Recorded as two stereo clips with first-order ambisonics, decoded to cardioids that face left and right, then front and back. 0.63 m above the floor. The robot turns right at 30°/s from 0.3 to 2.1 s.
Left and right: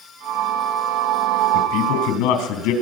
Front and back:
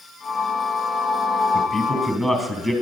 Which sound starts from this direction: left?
A man speaking, at 1.5 s.